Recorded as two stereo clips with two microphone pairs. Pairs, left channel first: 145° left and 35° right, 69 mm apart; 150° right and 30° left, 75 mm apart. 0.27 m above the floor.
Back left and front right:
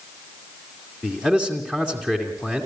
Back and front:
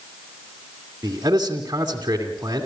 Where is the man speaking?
75° left, 2.5 m.